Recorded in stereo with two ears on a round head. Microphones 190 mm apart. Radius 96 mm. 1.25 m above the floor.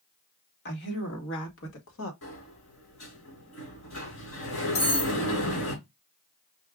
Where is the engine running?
No engine running in this recording.